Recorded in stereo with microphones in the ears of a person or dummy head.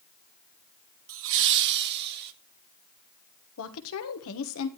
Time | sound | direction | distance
1.1 | laughter | 70° right (ahead or behind) | 1.4 m
3.6 | a woman speaking | 75° left (ahead or behind) | 1.4 m